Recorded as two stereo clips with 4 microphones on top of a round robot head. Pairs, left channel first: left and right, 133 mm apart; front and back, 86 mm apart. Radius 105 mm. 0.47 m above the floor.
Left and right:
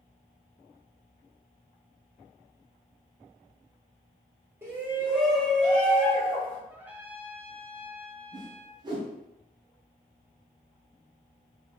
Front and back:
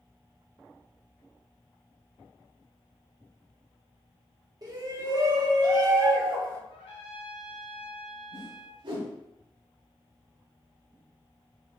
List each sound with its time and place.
4.6 s a shout: 155° right, 1.2 m; by 6.6 s 150° left, 1.5 m
6.7 s a trumpet: 15° right, 0.7 m
8.3 s a whoosh: 150° right, 0.8 m